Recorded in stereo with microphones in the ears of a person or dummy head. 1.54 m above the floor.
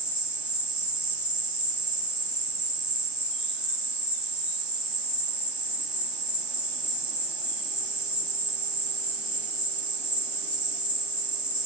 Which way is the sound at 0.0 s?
15° left (ahead or behind).